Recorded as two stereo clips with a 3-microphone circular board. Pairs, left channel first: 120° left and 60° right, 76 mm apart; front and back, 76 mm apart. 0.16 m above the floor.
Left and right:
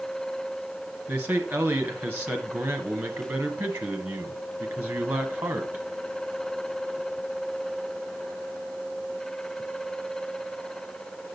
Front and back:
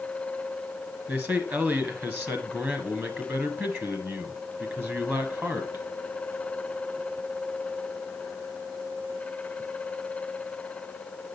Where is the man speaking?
120° right, 1.7 m.